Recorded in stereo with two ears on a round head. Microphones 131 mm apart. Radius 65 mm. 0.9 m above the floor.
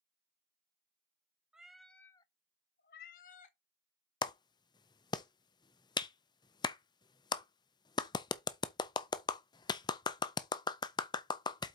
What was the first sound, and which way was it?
A cat meowing, 5° right (ahead or behind).